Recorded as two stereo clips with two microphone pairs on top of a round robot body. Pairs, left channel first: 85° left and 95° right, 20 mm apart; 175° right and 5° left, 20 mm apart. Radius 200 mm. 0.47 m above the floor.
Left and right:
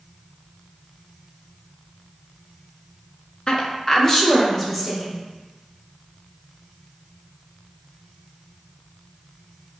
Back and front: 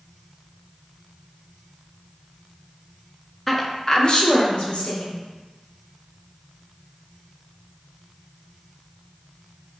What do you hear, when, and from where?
3.5 s a woman speaking: 105° left, 0.8 m; by 5.2 s 170° left, 1.5 m